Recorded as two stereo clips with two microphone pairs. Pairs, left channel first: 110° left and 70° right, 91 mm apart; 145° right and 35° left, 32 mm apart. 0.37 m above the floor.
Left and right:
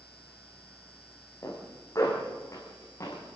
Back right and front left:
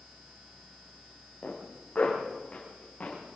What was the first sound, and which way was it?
A zipper, 160° left.